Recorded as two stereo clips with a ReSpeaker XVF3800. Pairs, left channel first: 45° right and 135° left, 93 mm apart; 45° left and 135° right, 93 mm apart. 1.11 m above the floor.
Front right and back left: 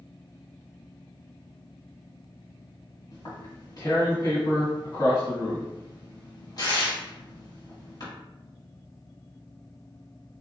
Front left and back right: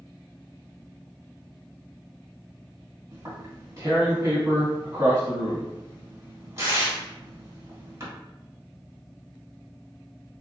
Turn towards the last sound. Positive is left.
turn(degrees=-80)